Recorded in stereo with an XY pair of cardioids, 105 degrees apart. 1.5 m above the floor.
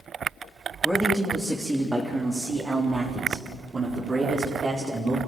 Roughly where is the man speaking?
Ahead.